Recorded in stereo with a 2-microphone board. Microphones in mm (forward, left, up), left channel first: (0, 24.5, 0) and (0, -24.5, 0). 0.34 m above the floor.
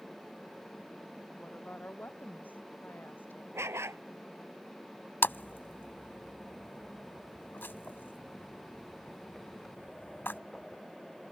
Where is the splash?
50° left (ahead or behind).